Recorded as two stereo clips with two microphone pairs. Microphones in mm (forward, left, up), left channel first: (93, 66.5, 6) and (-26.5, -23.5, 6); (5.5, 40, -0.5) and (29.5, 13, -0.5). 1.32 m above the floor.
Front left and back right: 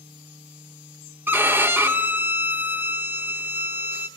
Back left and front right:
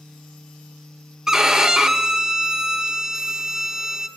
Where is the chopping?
I don't hear chopping.